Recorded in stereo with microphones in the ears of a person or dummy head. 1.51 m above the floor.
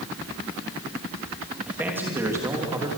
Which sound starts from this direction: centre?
A man speaking, at 1.7 s.